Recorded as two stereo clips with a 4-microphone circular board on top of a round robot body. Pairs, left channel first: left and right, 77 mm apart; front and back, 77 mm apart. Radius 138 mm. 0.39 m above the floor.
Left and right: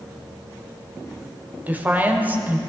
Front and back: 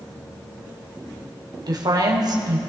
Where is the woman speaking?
155° right, 1.9 m.